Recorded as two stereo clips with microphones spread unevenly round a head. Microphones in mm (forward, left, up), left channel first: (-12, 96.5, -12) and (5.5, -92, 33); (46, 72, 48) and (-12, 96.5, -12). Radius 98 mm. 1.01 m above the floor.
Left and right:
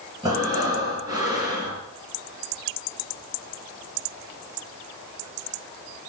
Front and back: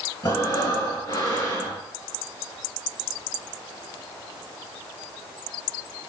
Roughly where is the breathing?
Ahead.